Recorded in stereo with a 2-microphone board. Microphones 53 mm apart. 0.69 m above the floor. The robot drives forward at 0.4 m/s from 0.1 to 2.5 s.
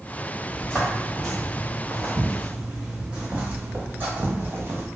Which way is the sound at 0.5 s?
20° left (ahead or behind).